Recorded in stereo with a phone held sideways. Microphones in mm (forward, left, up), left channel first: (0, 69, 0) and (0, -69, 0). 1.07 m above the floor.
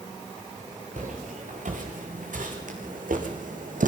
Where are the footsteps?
65° right (ahead or behind), 6.5 m; by 3.9 s 70° right (ahead or behind), 3.5 m.